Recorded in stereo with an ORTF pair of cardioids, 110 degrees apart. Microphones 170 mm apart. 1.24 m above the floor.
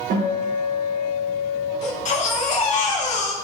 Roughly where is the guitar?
Right.